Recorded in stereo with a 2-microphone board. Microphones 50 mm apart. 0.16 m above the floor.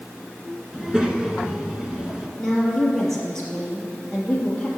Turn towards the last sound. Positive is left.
turn(degrees=10)  # may be behind; listen again after turning